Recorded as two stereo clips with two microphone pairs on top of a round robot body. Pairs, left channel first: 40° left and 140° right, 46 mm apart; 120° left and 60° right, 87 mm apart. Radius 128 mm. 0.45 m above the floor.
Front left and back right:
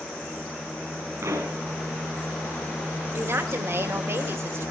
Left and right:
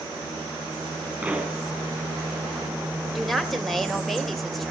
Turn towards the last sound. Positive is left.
turn(degrees=-150)